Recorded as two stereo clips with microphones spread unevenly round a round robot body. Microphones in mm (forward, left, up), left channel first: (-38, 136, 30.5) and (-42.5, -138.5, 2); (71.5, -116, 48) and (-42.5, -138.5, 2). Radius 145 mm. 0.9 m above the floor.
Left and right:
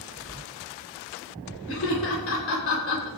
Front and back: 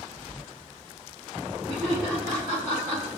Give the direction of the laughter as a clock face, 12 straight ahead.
8 o'clock.